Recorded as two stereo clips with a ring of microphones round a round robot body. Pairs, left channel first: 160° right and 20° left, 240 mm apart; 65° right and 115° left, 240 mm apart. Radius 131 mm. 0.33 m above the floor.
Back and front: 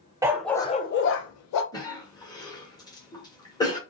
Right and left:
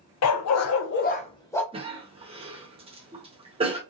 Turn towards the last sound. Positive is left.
turn(degrees=145)